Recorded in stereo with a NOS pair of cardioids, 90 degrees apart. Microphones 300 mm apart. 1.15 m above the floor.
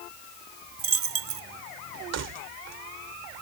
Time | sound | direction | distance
0.8 | a dropped coin | 50° right | ?
2.1 | keys jangling | 55° right | ?